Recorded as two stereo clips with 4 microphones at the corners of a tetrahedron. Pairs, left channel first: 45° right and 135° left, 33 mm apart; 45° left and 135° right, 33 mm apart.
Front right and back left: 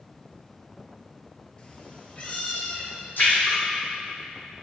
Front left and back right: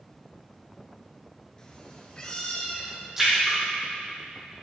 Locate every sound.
1.6 s a cat meowing: 5° right, 1.0 m; by 3.1 s 10° right, 2.0 m
3.2 s a splash: 55° right, 3 m